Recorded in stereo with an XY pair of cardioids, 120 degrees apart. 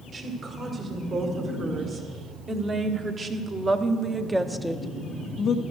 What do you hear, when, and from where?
0.1 s a woman speaking: 45° right, 3 m; by 5.6 s 55° left, 0.6 m